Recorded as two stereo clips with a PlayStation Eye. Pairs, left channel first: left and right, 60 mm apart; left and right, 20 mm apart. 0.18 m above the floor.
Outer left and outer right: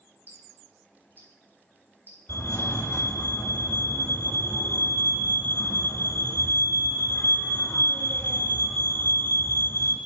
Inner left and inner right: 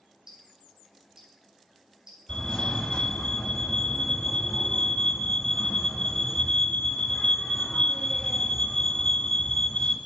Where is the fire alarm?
45° left (ahead or behind), 3.5 m.